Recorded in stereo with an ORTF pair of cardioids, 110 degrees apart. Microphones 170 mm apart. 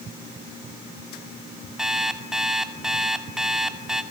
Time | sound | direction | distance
1.8 | an alarm clock | 5° right | 2.5 m